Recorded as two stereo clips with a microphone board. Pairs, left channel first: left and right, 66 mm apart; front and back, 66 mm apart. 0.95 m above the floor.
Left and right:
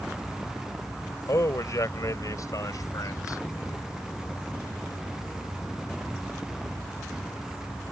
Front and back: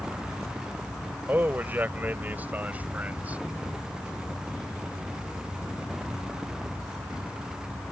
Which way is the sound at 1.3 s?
120° left.